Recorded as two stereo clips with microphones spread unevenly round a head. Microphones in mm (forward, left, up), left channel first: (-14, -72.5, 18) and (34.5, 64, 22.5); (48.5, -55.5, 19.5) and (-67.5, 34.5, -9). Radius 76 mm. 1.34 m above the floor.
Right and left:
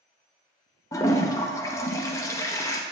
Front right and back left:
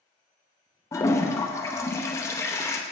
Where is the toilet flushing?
55° right, 0.7 m.